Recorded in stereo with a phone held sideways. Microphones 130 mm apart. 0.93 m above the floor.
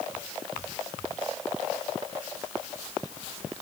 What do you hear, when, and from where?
Only background noise.